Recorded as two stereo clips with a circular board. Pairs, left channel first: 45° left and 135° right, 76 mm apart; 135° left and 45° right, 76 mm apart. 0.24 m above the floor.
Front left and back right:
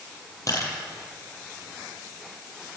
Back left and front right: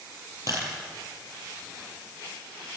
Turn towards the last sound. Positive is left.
turn(degrees=0)